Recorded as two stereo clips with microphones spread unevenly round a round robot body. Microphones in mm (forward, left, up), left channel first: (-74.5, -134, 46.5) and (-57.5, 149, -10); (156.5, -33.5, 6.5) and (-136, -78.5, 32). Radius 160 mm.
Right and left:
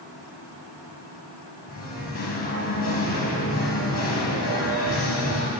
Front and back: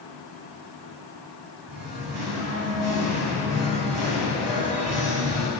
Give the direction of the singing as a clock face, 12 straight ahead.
4 o'clock.